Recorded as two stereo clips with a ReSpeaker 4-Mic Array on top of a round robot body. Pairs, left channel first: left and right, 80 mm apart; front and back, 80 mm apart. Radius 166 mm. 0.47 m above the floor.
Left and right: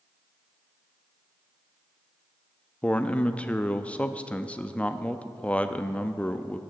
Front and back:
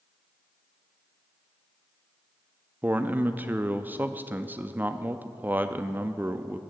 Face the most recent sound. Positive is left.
turn(degrees=145)